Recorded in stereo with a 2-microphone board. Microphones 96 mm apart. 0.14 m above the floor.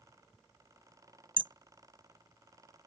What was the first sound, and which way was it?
Hammering, 65° right (ahead or behind).